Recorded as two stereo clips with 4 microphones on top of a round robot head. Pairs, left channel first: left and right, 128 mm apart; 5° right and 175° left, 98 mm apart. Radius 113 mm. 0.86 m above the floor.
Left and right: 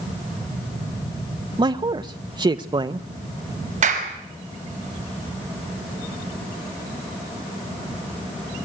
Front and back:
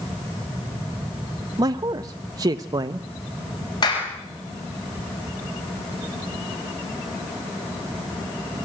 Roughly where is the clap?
Ahead right.